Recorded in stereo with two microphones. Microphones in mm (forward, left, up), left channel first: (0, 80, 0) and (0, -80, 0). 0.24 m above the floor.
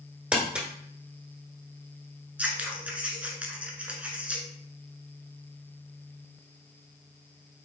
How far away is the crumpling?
About 1.3 m.